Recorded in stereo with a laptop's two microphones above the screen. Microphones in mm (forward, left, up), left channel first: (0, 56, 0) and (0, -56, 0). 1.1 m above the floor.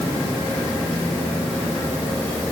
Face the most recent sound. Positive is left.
No sound to turn to.